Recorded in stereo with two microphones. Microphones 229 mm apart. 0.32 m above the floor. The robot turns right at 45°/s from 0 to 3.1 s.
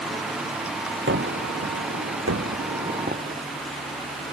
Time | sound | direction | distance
1.1 | a gunshot | 130° right | ?